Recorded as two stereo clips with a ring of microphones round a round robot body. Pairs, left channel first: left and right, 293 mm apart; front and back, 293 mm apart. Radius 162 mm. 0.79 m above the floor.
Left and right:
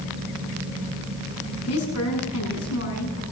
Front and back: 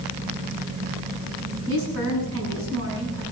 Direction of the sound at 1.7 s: 130° left.